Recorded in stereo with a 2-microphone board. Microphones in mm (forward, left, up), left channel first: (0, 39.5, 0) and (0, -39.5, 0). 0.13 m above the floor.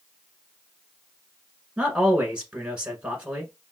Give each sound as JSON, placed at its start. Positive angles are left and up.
{"t": 1.8, "sound": "a man speaking", "side_deg": -15, "distance_m": 1.2}